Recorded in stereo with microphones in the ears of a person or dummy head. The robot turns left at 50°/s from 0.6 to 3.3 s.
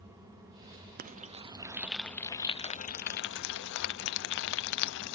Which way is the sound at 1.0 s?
50° right (ahead or behind).